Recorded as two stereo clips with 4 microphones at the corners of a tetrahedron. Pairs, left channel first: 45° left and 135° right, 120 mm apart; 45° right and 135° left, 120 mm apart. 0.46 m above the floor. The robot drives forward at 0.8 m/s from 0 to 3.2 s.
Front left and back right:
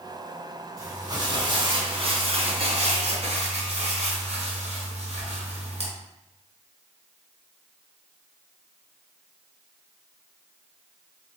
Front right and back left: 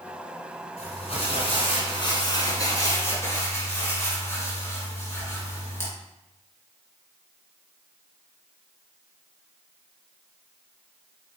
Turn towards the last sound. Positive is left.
turn(degrees=-115)